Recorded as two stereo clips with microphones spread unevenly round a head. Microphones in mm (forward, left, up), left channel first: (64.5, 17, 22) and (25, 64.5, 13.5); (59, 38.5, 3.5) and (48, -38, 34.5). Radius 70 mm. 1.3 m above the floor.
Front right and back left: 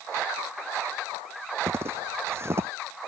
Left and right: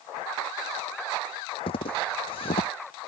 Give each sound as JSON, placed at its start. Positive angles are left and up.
{"t": 1.7, "sound": "footsteps", "azimuth_deg": 80}